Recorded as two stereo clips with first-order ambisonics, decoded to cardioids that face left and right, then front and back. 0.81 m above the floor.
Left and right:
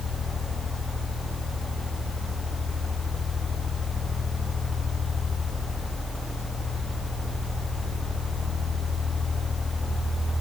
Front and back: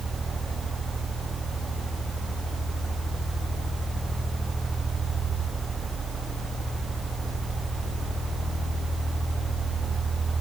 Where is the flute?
I don't hear a flute.